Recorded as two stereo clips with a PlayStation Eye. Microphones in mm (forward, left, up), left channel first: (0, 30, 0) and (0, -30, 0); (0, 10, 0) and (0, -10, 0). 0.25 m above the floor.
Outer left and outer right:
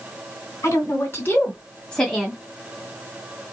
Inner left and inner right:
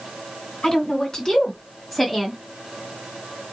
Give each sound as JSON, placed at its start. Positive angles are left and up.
{"t": 0.6, "sound": "a woman speaking", "side_deg": 50, "distance_m": 1.9}